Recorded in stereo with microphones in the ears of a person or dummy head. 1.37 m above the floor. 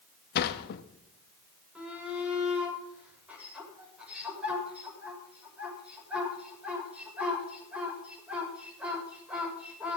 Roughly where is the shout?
Centre.